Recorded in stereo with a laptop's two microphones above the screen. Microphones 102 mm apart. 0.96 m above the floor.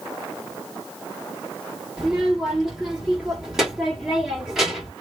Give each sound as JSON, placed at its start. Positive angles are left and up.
{"t": 2.0, "sound": "a child speaking", "side_deg": -5, "distance_m": 1.5}